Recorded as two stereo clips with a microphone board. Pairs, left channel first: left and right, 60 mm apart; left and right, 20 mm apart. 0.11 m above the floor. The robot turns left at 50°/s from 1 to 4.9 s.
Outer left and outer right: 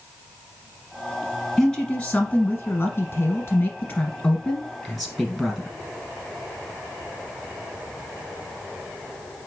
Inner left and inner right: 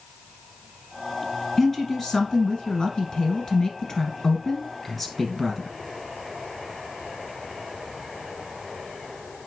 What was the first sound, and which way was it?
A woman speaking, 165° left.